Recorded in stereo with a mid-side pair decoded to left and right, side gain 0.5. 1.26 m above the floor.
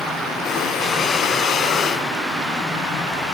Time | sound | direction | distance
0.5 | breathing | 55° left | 1.1 m